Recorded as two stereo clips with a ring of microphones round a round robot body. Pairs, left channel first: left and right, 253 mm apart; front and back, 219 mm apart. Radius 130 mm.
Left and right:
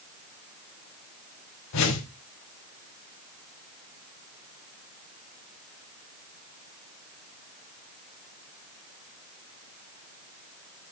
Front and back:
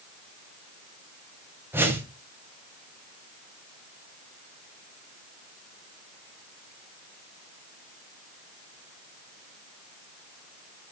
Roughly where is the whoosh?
Left.